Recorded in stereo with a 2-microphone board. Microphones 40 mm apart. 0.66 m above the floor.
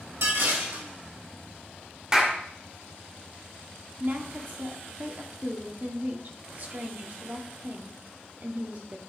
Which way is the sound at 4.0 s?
50° right (ahead or behind).